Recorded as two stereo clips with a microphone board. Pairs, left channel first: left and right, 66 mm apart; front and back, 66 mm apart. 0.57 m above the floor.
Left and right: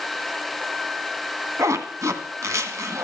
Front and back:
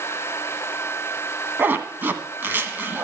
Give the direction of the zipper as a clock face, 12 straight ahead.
4 o'clock.